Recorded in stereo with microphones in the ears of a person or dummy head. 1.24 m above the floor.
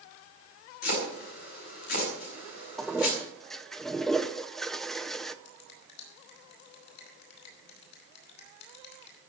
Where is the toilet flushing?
5° left (ahead or behind), 0.7 m.